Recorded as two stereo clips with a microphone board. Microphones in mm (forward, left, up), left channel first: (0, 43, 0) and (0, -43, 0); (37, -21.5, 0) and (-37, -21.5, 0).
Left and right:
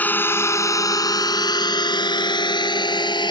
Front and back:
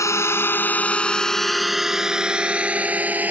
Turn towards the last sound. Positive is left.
turn(degrees=115)